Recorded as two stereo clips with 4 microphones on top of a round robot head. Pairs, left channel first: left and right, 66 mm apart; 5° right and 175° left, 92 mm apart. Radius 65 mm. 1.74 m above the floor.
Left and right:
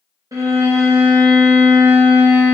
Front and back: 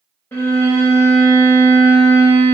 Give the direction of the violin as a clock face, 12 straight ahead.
2 o'clock.